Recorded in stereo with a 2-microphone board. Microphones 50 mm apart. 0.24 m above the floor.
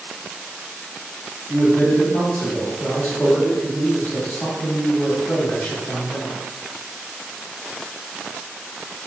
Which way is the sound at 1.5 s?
25° left (ahead or behind).